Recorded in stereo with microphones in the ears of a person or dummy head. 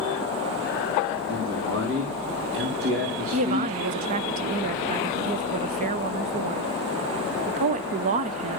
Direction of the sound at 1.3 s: 75° right (ahead or behind).